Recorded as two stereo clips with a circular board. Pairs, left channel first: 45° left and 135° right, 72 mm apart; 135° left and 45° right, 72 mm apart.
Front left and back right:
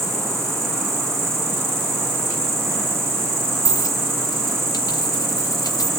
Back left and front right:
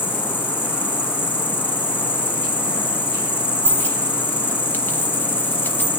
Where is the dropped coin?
75° left, 1.4 m.